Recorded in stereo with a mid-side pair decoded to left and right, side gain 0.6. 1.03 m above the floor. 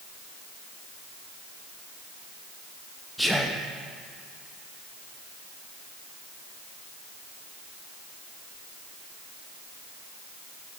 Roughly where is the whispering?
Ahead.